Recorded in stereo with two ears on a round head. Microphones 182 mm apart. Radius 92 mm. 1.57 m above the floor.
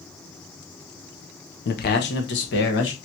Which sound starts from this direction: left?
A man speaking, at 1.6 s.